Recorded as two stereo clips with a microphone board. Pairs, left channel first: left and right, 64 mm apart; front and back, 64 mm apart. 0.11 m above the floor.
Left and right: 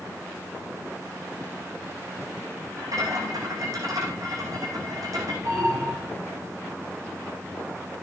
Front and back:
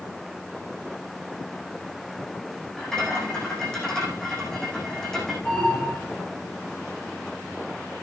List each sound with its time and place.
2.8 s a rattle: 80° right, 7.5 m
5.5 s an alarm: 65° right, 8 m